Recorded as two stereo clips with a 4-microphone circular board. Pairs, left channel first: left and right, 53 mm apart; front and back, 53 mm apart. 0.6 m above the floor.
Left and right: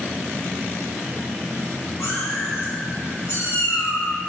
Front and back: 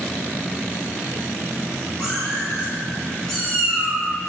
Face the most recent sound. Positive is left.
turn(degrees=90)